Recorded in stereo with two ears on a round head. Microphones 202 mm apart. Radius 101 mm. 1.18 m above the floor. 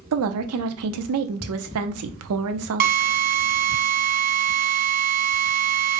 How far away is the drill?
About 0.7 m.